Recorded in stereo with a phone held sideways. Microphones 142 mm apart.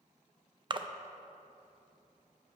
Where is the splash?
35° right (ahead or behind), 0.5 m.